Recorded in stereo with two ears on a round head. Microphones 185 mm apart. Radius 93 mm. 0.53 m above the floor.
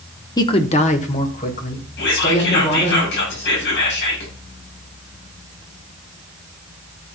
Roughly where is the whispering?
Left.